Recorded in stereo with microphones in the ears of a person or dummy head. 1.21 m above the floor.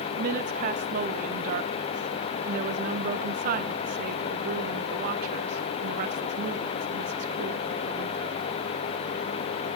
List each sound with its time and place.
0.2 s a woman speaking: 50° right (ahead or behind), 1.1 m